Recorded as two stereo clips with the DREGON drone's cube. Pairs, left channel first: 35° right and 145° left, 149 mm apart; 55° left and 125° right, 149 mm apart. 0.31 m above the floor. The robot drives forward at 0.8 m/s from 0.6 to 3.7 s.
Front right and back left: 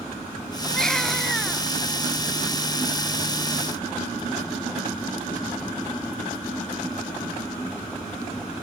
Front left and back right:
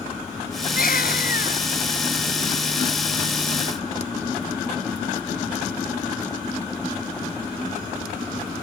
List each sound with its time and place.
0.7 s a baby crying: 50° left; by 1.6 s 55° left